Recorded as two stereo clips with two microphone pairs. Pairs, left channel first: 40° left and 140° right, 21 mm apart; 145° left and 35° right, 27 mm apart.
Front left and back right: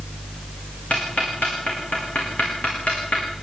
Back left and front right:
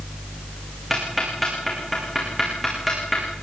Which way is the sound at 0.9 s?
50° left.